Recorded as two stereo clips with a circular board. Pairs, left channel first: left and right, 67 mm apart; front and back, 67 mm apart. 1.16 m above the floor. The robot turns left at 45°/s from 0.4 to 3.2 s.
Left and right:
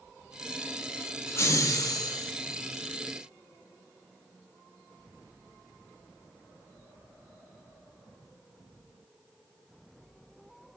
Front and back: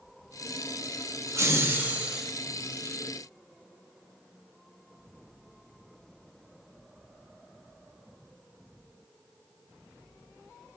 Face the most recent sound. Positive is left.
turn(degrees=55)